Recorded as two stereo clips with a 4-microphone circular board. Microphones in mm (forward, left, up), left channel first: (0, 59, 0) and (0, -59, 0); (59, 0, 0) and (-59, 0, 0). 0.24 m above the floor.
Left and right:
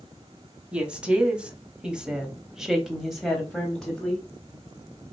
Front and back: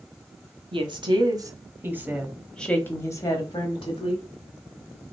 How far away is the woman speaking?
About 1.4 m.